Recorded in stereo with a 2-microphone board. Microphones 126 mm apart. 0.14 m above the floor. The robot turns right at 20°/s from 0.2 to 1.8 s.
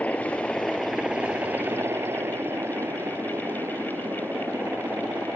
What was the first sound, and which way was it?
A helicopter, 170° left.